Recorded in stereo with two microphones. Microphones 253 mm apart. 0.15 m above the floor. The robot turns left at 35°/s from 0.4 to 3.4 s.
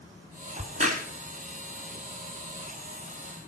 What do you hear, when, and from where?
0.6 s a crack: 30° right (ahead or behind), 1.6 m